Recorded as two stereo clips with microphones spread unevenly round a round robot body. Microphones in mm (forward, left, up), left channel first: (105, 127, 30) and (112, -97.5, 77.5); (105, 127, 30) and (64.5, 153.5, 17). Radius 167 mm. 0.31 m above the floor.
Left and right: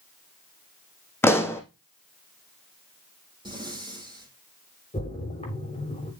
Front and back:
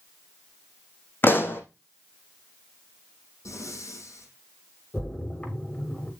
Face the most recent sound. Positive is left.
turn(degrees=30)